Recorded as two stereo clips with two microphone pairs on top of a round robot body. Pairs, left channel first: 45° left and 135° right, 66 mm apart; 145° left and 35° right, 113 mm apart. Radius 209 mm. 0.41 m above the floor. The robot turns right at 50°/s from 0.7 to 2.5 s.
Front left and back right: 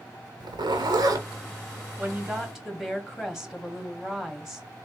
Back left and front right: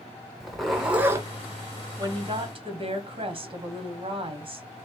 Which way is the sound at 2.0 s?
80° right.